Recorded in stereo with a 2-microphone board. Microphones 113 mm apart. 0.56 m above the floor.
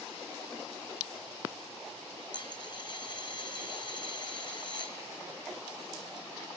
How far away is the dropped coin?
About 1.7 m.